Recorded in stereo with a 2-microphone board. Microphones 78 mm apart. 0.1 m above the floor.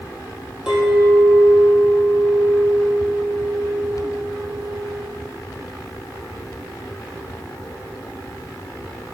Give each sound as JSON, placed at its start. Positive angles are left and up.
{"t": 0.7, "sound": "a clink", "side_deg": -5, "distance_m": 2.0}